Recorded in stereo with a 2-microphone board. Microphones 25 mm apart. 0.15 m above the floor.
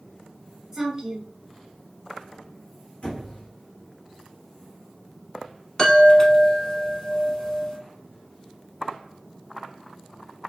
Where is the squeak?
60° left (ahead or behind), 1.3 m.